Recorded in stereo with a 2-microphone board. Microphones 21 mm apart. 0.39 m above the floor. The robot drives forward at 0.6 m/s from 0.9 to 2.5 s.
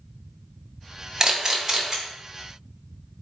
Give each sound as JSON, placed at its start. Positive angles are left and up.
{"t": 1.2, "sound": "a camera shutter", "side_deg": -25, "distance_m": 0.7}